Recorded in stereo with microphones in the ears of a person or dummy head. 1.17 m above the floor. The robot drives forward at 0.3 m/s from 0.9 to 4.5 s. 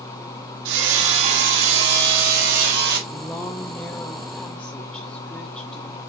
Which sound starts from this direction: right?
Hammering, at 0.7 s.